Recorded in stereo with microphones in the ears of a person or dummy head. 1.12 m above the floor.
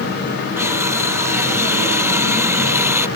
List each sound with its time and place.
0.6 s crushing: 10° right (ahead or behind)